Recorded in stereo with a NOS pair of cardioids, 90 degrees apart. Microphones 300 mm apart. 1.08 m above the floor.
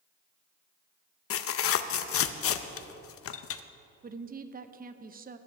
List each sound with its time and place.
1.3 s tearing paper: 50° left, 0.6 m
4.0 s a woman speaking: 30° right, 0.7 m